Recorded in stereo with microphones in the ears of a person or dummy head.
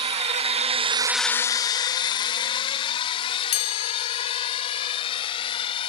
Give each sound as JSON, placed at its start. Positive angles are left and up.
{"t": 0.0, "sound": "a drone", "side_deg": -35}
{"t": 3.5, "sound": "a chime", "side_deg": 40}